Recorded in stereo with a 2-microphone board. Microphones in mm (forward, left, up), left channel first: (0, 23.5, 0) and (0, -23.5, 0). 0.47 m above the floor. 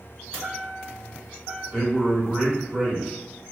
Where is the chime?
20° right (ahead or behind), 1.1 m.